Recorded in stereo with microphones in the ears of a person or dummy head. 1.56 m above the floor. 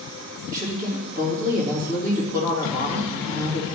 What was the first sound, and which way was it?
A woman speaking, 50° right (ahead or behind).